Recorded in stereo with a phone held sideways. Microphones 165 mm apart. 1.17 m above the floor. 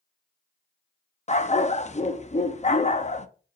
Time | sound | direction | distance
1.3 | a dog barking | 40° left (ahead or behind) | 0.6 m